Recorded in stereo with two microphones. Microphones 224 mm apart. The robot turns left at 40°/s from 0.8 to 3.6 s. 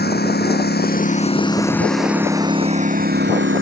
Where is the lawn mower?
45° left; by 3.6 s 65° right.